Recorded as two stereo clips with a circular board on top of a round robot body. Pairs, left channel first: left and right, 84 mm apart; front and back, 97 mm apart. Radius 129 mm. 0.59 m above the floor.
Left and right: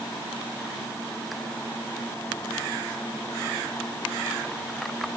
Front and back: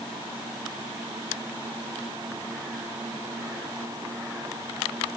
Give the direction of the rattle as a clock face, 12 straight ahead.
I don't hear a rattle.